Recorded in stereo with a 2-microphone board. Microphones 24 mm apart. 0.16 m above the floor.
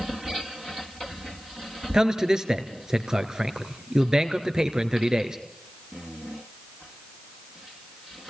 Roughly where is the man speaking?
Right.